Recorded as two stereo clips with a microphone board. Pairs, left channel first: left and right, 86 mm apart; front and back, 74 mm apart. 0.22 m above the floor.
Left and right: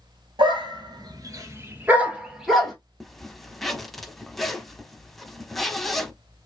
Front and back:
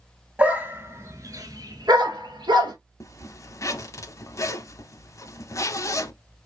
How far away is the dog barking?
About 1.1 m.